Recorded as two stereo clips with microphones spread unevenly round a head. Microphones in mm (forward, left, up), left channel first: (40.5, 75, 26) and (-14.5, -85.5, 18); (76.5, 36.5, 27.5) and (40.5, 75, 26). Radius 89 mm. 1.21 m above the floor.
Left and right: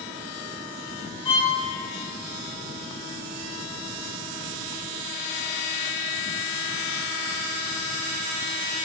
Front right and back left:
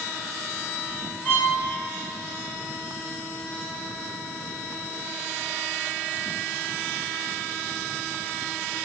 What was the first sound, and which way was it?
A violin, 10° left.